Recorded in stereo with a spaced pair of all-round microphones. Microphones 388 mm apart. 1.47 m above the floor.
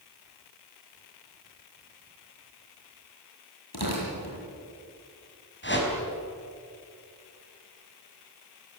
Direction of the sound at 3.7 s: 75° left (ahead or behind).